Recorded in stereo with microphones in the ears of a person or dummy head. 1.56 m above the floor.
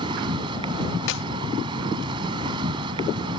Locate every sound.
0.0 s an insect: 30° right (ahead or behind)
1.1 s a clap: 70° left (ahead or behind)